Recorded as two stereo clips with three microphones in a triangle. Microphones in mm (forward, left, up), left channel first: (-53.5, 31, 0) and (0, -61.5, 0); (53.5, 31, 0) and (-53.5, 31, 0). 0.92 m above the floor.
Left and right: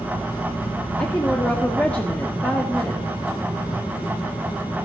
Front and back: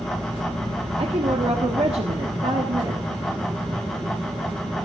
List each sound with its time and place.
1.0 s a woman speaking: 165° right, 1.5 m